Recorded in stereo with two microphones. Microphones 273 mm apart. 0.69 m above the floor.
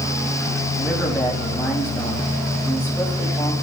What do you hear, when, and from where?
0.8 s a man speaking: 5° left (ahead or behind), 4.5 m